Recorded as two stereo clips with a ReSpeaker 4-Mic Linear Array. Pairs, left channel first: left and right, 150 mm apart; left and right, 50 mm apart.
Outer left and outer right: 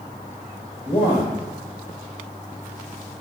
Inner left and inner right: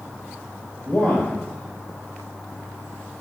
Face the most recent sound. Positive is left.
turn(degrees=30)  # may be behind; listen again after turning